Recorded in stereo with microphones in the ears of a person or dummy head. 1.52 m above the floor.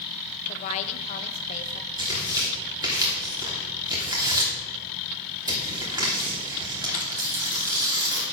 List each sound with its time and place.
0.5 s a woman speaking: 40° left (ahead or behind), 1.0 m
2.0 s tearing paper: 20° right (ahead or behind), 3 m